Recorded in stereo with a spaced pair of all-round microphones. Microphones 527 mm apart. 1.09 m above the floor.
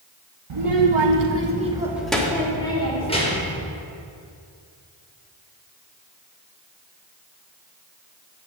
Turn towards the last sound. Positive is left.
turn(degrees=15)  # may be behind; listen again after turning